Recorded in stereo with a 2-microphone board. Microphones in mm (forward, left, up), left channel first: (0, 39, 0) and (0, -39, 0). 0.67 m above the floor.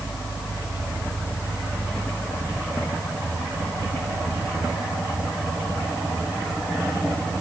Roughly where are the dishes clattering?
No dishes clattering in this recording.